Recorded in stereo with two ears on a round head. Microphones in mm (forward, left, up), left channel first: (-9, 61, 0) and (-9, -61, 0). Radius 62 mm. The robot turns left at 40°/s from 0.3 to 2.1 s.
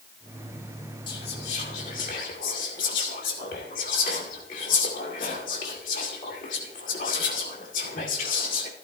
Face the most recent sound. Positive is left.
turn(degrees=65)  # may be behind; listen again after turning